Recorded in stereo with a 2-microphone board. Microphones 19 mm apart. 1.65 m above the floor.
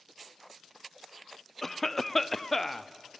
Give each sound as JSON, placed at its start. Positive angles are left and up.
{"t": 1.6, "sound": "a cough", "side_deg": 10, "distance_m": 0.6}